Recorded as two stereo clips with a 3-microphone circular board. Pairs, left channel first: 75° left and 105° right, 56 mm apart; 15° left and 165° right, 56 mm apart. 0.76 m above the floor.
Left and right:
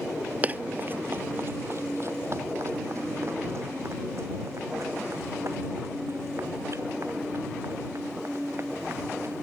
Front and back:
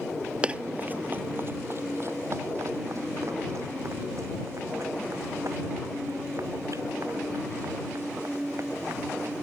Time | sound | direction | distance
0.4 | running footsteps | 120° right | ?